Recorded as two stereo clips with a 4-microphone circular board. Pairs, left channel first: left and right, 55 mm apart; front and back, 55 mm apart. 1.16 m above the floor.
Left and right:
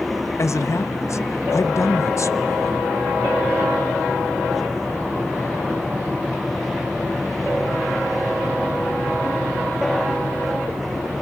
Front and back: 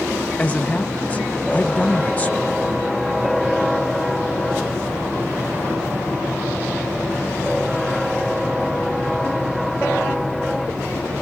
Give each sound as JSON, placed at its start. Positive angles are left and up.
{"t": 0.4, "sound": "a man speaking", "azimuth_deg": 65, "distance_m": 0.6}